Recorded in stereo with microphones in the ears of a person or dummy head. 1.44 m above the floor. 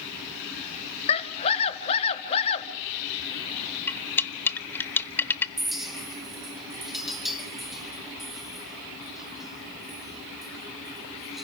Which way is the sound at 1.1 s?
30° left (ahead or behind).